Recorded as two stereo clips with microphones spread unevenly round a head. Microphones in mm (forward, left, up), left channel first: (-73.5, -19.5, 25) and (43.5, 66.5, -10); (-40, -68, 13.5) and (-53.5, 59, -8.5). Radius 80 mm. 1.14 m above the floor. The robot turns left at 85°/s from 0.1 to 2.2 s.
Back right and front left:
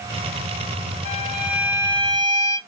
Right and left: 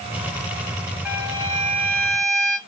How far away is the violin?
About 2 m.